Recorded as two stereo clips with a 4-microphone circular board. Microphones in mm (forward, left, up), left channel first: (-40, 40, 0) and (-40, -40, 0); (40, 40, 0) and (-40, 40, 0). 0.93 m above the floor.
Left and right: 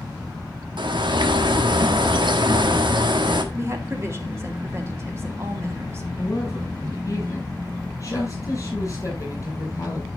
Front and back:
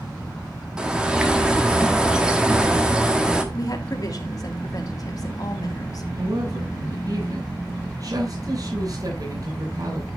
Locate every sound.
0.8 s a bird: 100° right, 1.4 m
3.5 s a woman speaking: 35° right, 2.5 m
6.2 s a woman speaking: 140° left, 8 m